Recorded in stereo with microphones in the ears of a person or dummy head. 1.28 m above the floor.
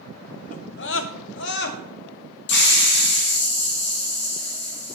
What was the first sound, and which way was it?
A scream, 40° left (ahead or behind).